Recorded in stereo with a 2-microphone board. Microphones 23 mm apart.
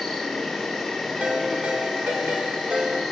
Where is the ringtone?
80° right, 1.4 m.